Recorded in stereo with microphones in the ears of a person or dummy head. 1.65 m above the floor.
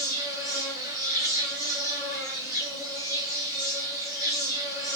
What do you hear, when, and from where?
0.0 s an insect: 20° right (ahead or behind), 1.4 m